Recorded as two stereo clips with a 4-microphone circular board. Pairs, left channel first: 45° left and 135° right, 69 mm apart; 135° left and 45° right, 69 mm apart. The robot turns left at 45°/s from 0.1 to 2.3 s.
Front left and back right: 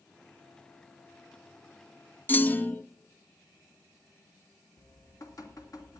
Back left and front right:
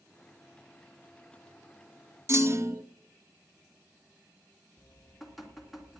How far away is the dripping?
About 2 m.